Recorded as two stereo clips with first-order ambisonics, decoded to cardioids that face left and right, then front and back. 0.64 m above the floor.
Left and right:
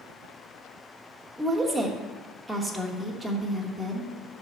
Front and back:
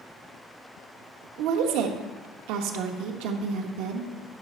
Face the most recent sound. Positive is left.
turn(degrees=-175)